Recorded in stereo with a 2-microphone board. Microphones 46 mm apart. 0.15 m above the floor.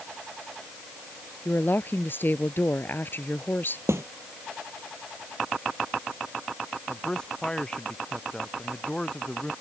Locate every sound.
1.4 s a woman speaking: 45° left (ahead or behind)
3.9 s a snare drum: 70° right (ahead or behind)
6.9 s a man speaking: 15° left (ahead or behind)